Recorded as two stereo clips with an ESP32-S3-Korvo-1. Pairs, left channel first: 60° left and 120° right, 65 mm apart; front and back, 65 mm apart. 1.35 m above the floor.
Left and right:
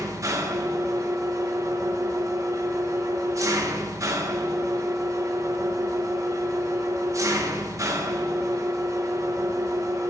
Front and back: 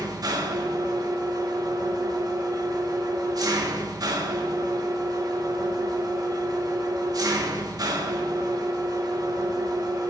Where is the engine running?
160° right, 1.1 m.